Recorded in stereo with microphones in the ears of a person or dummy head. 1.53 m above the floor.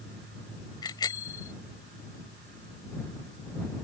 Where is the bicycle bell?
20° left (ahead or behind).